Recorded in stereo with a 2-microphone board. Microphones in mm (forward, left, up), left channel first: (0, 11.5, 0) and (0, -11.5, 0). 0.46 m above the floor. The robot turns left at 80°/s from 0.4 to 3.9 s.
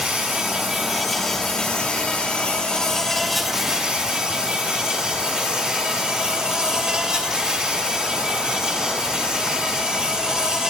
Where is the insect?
125° right, 1.4 m; by 10.7 s 45° right, 1.4 m.